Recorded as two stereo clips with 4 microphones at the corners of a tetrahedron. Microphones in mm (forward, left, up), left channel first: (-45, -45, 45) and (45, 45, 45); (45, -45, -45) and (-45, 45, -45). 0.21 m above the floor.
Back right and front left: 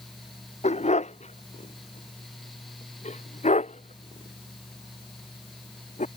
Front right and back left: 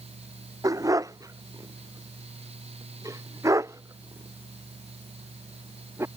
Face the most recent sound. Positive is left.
turn(degrees=-155)